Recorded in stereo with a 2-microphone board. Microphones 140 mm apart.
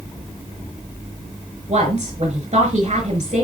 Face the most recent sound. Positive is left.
turn(degrees=-45)  # may be behind; listen again after turning